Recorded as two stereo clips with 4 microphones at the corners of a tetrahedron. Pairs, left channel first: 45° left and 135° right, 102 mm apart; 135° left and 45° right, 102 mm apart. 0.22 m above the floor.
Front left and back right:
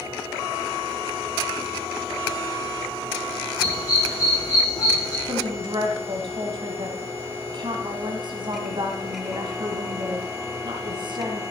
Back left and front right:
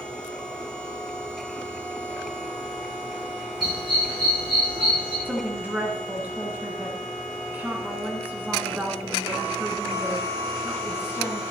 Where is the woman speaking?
115° right, 2.0 m.